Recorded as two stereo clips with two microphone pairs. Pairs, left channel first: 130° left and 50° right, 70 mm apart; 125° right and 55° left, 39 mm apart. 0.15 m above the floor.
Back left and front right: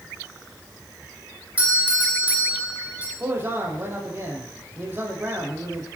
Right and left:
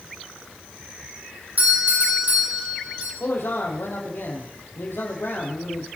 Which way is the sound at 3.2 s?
110° right.